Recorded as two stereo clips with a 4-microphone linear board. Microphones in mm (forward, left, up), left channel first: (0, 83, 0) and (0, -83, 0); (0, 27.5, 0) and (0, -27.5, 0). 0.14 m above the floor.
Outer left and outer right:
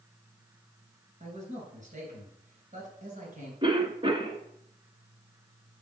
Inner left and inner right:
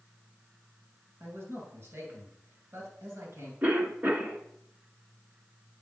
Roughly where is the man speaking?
Right.